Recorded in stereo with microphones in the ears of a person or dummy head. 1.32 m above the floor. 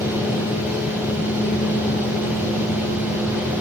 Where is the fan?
10° right (ahead or behind), 7.5 m.